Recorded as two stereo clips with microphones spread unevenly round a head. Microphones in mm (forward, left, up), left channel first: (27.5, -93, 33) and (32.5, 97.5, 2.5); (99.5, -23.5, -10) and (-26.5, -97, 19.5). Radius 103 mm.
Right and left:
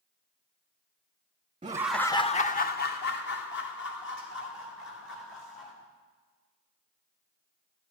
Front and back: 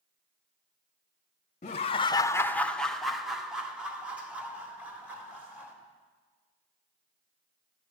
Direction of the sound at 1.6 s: 40° left.